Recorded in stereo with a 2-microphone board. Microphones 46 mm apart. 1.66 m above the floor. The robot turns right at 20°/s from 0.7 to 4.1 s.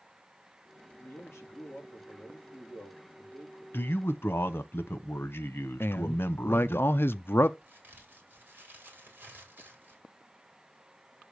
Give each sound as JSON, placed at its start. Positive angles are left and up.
{"t": 1.0, "sound": "a man speaking", "azimuth_deg": 100, "distance_m": 3.0}
{"t": 3.7, "sound": "a man speaking", "side_deg": 55, "distance_m": 0.9}
{"t": 5.8, "sound": "a man speaking", "side_deg": 50, "distance_m": 0.5}
{"t": 7.6, "sound": "a crack", "side_deg": -40, "distance_m": 4.5}